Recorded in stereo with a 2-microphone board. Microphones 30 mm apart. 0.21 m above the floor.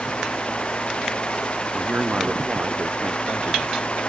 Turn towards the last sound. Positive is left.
turn(degrees=-60)  # may be behind; listen again after turning